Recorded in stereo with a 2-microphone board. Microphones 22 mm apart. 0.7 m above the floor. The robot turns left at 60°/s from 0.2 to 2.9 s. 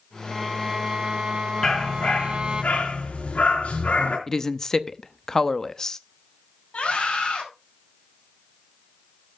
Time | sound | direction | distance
0.3 | a violin | straight ahead | 0.8 m
1.6 | a dog barking | 155° left | 4.5 m
4.3 | a woman speaking | 20° left (ahead or behind) | 0.7 m
6.7 | a scream | 65° left (ahead or behind) | 6 m